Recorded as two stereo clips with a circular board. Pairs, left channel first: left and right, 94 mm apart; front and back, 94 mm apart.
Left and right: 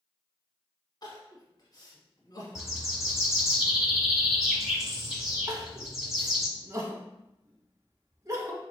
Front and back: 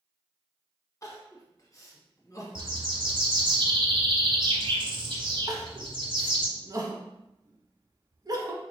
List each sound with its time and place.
1.0 s crying: 50° left, 1.1 m
2.5 s a bird: 175° right, 1.0 m
5.5 s crying: 140° right, 0.8 m